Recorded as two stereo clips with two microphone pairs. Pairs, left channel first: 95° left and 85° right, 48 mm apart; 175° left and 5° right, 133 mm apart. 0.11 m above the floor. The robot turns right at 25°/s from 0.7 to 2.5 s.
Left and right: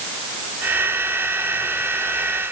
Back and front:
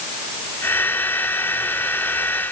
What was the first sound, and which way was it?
Only background noise.